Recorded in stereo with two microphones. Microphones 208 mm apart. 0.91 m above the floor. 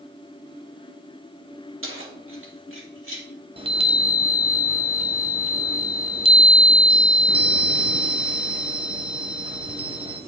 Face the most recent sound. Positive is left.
turn(degrees=-25)  # may be behind; listen again after turning